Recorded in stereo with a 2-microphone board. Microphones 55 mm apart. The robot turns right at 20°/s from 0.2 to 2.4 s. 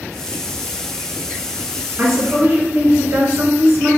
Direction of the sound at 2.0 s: 40° right (ahead or behind).